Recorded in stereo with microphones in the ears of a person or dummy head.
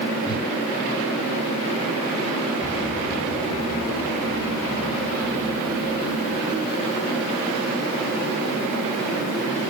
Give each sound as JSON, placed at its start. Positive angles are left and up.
{"t": 0.2, "sound": "a whoosh", "side_deg": 25, "distance_m": 3.0}
{"t": 2.6, "sound": "an explosion", "side_deg": 20, "distance_m": 7.5}